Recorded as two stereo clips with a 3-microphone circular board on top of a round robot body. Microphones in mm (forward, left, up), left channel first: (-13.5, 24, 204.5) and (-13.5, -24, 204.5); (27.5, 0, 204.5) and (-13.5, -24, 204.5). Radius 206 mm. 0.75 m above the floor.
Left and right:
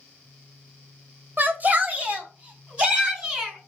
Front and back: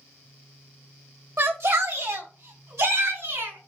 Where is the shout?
130° right, 2.5 m; by 3.7 s 160° right, 5 m.